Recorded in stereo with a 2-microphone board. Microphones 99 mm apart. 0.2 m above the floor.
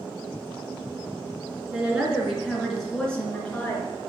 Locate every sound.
1.7 s a woman speaking: 15° right (ahead or behind), 3 m; by 4.0 s 20° left (ahead or behind), 3 m